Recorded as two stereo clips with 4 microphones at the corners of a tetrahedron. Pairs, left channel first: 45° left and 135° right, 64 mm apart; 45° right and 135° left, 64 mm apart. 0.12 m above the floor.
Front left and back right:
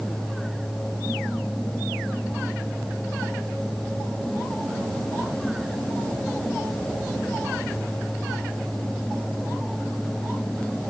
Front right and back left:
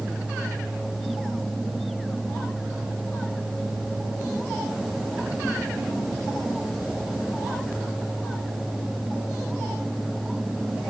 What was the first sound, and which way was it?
Only background noise.